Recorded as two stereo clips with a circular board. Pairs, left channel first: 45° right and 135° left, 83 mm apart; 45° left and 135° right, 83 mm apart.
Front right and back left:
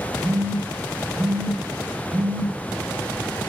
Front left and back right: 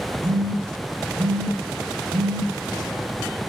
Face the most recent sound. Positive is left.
turn(degrees=-155)